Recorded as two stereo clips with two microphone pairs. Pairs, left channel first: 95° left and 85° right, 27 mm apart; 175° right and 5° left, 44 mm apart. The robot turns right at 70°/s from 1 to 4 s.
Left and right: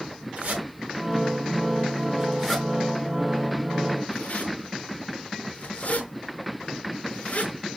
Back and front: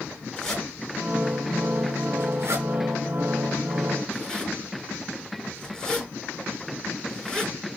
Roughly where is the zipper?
Right.